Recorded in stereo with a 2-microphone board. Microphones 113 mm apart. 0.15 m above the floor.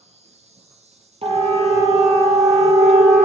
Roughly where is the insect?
Right.